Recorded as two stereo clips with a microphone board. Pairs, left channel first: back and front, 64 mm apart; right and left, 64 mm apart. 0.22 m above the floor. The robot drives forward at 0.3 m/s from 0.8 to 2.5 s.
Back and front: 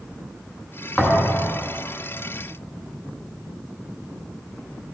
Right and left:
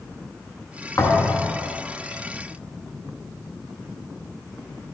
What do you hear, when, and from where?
1.0 s a thud: 105° right, 1.0 m; by 1.5 s 115° right, 1.1 m